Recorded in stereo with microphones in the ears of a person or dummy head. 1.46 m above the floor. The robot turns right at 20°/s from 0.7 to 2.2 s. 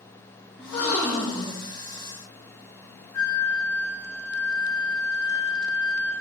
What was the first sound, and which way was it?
A gasp, 65° left (ahead or behind).